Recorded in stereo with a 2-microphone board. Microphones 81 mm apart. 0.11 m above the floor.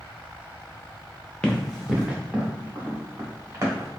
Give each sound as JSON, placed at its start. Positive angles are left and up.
{"t": 1.4, "sound": "running footsteps", "side_deg": 10, "distance_m": 0.9}